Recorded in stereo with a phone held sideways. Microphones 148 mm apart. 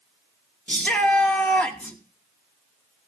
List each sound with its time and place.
0.7 s a shout: 10° left (ahead or behind), 1.7 m